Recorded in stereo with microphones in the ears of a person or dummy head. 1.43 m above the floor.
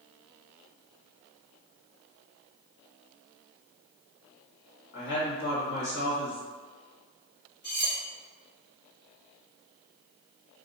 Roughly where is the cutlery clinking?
Left.